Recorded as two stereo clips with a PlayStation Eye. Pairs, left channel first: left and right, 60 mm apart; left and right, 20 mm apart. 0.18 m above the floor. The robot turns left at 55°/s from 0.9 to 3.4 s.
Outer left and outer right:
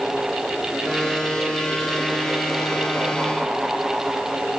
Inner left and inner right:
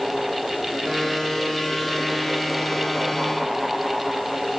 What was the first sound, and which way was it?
Only background noise.